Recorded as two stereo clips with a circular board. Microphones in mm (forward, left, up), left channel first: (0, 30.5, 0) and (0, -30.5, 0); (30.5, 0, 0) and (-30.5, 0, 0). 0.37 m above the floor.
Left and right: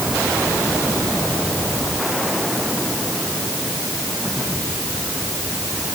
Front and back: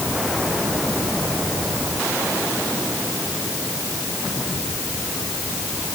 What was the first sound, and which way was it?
Only background noise.